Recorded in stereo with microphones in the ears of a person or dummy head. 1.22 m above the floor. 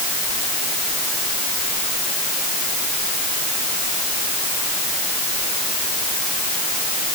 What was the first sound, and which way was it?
Only background noise.